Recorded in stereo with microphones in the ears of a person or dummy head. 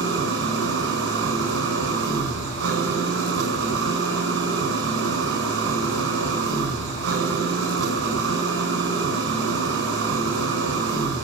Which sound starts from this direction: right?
An engine running, at 0.0 s.